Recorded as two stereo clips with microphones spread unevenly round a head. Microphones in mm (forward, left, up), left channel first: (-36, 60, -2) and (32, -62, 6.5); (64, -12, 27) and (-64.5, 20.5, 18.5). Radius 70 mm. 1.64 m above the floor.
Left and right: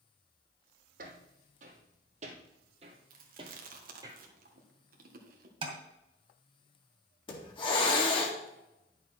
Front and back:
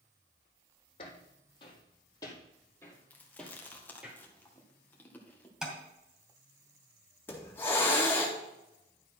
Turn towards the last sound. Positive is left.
turn(degrees=60)